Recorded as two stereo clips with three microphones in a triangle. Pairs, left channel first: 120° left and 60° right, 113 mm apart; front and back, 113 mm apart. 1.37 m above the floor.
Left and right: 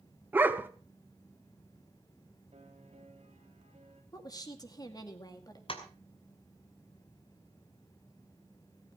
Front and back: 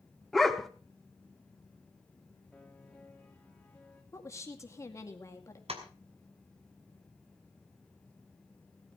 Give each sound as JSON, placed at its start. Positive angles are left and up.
{"t": 0.3, "sound": "a dog barking", "azimuth_deg": -85, "distance_m": 0.9}
{"t": 2.5, "sound": "a piano", "azimuth_deg": -85, "distance_m": 3.5}
{"t": 4.1, "sound": "a woman speaking", "azimuth_deg": 65, "distance_m": 2.0}
{"t": 5.7, "sound": "tapping", "azimuth_deg": 155, "distance_m": 2.5}